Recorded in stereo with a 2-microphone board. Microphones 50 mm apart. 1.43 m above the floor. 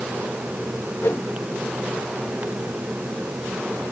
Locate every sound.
1.0 s a whoosh: 60° left (ahead or behind)